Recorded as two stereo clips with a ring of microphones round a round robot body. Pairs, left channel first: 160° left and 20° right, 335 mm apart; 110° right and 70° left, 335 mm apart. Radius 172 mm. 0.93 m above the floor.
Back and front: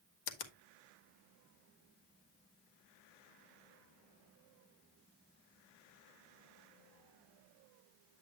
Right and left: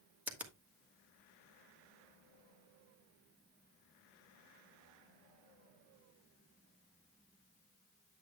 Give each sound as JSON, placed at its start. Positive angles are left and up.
{"t": 0.3, "sound": "a finger snap", "azimuth_deg": 155, "distance_m": 1.2}